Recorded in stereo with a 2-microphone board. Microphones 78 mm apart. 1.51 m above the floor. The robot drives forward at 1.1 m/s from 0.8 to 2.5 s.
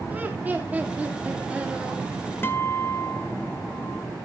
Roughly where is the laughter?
Centre.